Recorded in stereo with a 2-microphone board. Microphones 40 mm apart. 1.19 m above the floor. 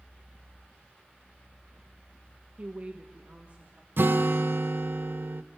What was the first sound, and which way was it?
A woman speaking, 35° right (ahead or behind).